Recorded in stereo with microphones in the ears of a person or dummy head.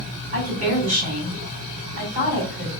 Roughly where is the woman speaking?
Right.